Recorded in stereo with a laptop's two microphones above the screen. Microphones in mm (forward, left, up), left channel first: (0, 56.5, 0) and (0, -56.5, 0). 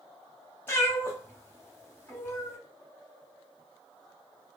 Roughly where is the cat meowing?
Left.